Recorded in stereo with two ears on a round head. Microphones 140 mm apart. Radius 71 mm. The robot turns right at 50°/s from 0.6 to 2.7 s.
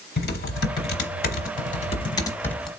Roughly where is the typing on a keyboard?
Left.